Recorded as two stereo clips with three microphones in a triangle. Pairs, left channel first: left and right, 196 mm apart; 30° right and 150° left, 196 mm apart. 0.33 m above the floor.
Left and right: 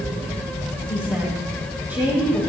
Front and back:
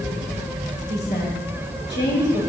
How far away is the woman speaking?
About 5 m.